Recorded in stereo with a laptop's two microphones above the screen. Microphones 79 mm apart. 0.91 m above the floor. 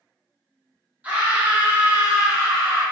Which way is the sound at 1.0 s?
15° right (ahead or behind).